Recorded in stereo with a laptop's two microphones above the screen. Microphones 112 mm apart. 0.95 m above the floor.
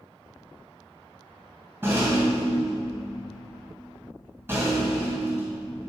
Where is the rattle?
20° right (ahead or behind), 2 m.